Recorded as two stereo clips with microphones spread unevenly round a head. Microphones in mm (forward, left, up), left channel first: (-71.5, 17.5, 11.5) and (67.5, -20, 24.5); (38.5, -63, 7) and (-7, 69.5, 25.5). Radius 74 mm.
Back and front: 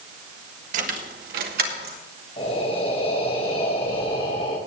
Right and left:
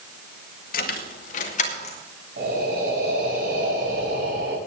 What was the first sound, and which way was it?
Keys jangling, 50° right.